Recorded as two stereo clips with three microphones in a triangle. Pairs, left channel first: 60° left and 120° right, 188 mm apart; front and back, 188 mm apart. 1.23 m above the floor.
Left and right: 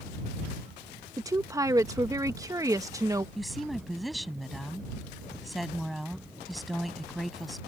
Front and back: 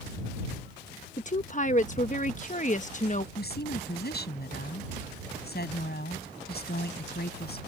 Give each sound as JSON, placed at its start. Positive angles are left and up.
{"t": 1.2, "sound": "a woman speaking", "azimuth_deg": -45}
{"t": 3.4, "sound": "a woman speaking", "azimuth_deg": -30}